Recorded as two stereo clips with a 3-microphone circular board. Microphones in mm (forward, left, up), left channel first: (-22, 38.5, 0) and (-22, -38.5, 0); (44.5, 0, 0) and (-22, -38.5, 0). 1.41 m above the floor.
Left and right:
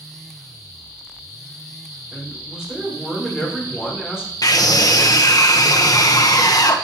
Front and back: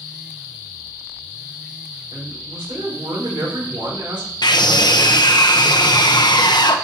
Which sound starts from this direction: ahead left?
A scream, at 4.4 s.